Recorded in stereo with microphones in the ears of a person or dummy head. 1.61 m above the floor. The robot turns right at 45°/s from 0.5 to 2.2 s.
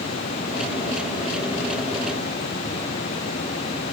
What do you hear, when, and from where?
Only background noise.